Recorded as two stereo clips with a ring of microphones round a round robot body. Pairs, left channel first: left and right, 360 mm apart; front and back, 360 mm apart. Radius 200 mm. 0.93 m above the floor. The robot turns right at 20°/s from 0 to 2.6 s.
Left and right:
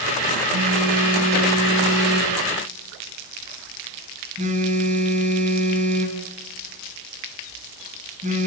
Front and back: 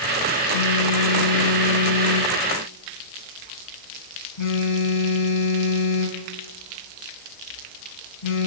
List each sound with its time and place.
0.5 s a phone buzzing: 60° right, 3 m; by 8.5 s 20° right, 3 m